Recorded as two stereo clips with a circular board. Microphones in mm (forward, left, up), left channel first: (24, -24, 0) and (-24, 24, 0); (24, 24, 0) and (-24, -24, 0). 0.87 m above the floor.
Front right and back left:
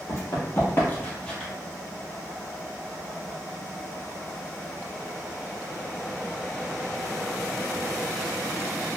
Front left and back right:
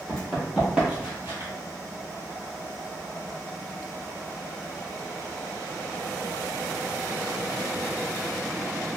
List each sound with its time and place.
0.1 s running footsteps: 35° right, 1.2 m; by 1.5 s 125° right, 1.1 m